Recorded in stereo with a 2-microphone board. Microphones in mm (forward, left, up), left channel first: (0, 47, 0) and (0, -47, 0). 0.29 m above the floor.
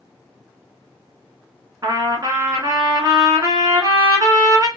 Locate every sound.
1.8 s a trumpet: 40° right (ahead or behind), 0.9 m